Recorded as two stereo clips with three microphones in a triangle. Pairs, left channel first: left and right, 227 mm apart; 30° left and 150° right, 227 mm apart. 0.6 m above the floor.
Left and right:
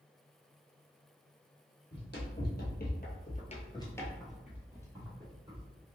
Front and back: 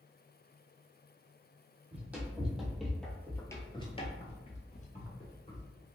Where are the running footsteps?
130° left, 1.3 m; by 5.7 s 30° right, 1.2 m.